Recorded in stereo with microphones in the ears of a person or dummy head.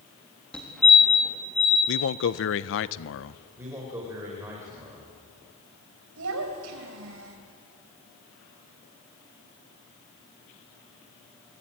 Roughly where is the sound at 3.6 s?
Centre.